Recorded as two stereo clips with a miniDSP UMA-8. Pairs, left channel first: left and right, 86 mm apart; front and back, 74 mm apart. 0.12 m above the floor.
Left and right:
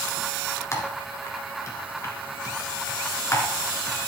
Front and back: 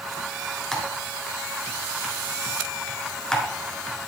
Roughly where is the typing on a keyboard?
Left.